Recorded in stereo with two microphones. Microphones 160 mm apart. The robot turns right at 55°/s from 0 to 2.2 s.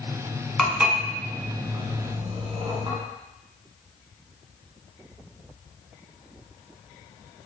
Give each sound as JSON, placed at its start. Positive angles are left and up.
{"t": 0.6, "sound": "dishes clattering", "side_deg": 0, "distance_m": 1.1}